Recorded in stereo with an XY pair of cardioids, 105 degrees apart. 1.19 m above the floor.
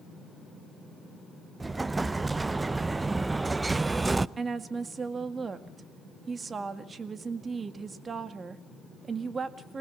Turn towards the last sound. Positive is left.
turn(degrees=-35)